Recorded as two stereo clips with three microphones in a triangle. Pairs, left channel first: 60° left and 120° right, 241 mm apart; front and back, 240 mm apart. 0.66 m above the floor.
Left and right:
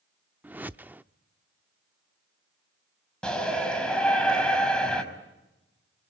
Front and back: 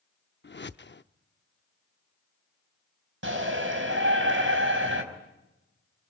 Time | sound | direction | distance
0.4 | a whoosh | 35° right | 0.6 m
3.2 | a shout | 145° left | 5 m